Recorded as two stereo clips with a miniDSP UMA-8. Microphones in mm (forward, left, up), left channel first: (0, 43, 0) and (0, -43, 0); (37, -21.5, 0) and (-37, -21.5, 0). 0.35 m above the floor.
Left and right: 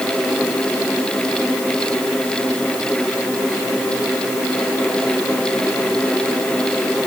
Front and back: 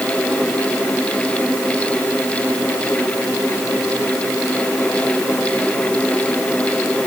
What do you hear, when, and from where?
Only background noise.